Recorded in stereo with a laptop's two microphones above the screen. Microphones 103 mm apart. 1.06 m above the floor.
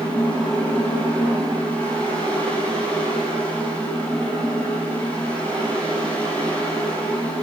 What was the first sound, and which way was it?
A fan, 15° left (ahead or behind).